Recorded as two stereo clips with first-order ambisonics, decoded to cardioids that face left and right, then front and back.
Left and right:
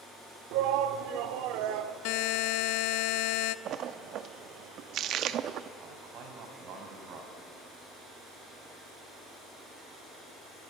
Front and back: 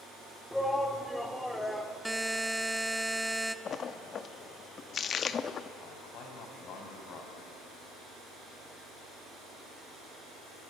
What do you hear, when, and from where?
0.5 s a shout: 85° right, 1.6 m
2.0 s a buzzer: 90° left, 0.6 m
3.6 s a splash: 55° right, 0.7 m
5.8 s a man speaking: 50° right, 4.5 m